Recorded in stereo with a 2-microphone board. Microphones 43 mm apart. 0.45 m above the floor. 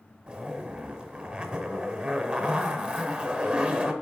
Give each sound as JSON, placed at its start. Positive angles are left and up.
{"t": 0.3, "sound": "a zipper", "side_deg": -25, "distance_m": 1.5}